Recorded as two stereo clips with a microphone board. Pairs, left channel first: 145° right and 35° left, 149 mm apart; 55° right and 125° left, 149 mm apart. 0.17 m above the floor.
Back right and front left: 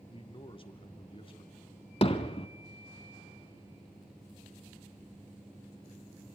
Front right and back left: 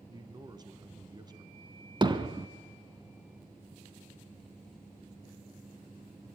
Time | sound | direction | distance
0.1 | a man speaking | 175° left | 1.5 m
2.0 | hammering | 175° left | 1.2 m